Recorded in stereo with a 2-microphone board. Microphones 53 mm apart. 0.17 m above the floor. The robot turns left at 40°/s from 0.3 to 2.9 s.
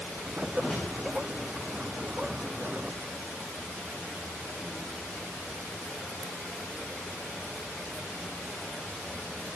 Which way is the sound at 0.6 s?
20° left (ahead or behind).